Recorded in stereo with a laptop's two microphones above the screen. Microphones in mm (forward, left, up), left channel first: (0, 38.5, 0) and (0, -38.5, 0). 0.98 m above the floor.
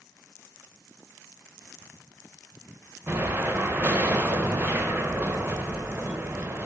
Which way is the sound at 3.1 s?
25° right (ahead or behind).